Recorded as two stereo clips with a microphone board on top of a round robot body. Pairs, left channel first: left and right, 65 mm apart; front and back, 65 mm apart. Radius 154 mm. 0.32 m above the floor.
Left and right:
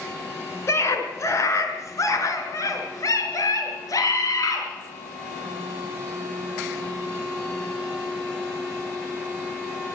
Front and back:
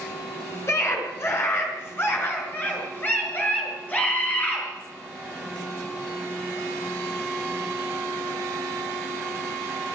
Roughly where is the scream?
Ahead left.